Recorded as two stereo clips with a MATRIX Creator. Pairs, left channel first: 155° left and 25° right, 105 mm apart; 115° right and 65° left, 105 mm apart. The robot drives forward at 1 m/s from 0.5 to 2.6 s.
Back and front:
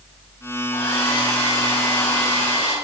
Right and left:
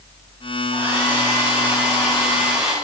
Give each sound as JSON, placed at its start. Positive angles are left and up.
{"t": 0.7, "sound": "a hair dryer", "azimuth_deg": 135, "distance_m": 4.0}